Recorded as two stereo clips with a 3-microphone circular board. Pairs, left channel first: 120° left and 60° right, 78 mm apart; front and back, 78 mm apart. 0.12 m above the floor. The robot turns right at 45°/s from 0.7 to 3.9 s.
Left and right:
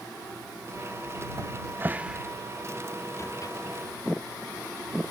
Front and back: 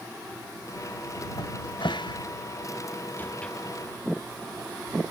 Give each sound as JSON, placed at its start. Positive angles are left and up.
{"t": 1.4, "sound": "a cupboard door", "azimuth_deg": -15}